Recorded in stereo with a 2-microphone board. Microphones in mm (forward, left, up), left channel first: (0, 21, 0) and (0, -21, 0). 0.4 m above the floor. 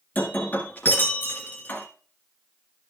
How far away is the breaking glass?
About 1.7 m.